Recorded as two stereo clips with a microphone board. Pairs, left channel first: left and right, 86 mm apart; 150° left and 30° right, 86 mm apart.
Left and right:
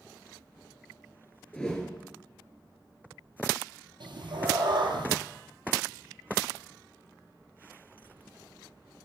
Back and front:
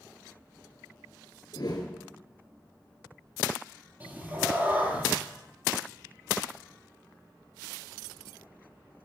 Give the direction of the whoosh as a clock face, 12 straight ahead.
6 o'clock.